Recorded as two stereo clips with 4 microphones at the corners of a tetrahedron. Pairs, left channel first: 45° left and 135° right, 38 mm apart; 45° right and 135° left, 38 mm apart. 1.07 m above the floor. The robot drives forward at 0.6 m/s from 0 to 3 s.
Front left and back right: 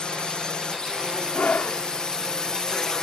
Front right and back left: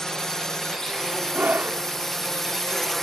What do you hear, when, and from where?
0.0 s a drone: 10° left; by 3.0 s 20° left
1.3 s a scream: 90° left; by 1.8 s 95° left